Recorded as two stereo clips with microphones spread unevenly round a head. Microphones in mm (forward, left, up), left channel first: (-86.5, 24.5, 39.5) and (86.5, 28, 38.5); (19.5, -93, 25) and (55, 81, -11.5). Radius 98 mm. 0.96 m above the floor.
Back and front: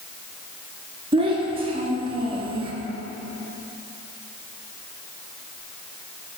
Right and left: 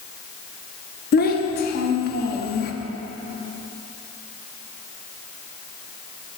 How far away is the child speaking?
About 0.8 m.